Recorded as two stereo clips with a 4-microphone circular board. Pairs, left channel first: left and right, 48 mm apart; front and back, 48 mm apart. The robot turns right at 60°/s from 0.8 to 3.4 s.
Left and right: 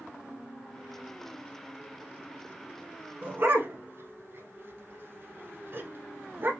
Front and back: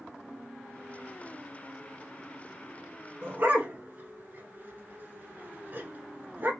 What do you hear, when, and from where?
3.2 s a dog barking: 145° right, 0.9 m; by 6.5 s 135° right, 0.9 m